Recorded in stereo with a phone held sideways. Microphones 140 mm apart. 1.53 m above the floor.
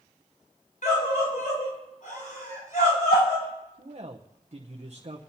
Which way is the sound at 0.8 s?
70° left (ahead or behind).